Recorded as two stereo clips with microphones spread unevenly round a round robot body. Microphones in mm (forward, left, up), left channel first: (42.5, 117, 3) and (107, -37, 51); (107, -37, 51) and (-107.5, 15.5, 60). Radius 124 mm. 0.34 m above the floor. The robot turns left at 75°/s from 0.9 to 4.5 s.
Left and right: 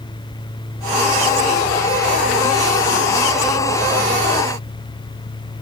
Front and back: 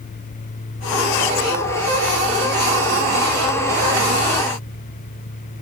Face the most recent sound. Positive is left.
No sound to turn to.